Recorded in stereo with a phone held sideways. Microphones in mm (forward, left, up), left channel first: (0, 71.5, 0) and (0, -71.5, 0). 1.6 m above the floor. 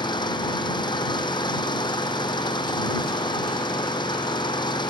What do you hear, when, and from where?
0.0 s an engine running: 30° left (ahead or behind)